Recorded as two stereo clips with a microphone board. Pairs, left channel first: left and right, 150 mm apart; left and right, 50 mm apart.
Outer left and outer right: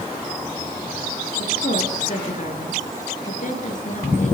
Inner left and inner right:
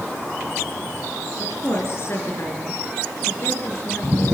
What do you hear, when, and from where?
1.4 s a woman speaking: 50° left (ahead or behind), 7.5 m